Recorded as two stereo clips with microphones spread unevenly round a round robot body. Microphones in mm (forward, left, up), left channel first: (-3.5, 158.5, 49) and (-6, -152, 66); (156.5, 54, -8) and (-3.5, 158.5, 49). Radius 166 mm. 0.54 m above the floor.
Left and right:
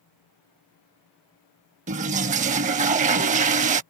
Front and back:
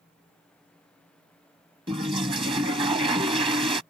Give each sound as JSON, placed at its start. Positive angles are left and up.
{"t": 1.9, "sound": "a toilet flushing", "azimuth_deg": -155}